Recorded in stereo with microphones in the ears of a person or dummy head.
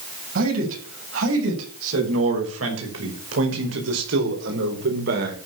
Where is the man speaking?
80° right, 7.5 m; by 5.4 s 60° right (ahead or behind), 4 m.